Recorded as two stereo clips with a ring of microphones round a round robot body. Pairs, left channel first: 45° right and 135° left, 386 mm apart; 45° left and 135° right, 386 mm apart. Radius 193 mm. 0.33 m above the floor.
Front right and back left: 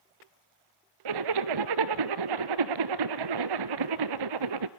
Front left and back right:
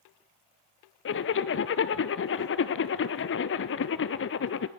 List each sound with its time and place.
1.1 s a zipper: 105° left, 1.0 m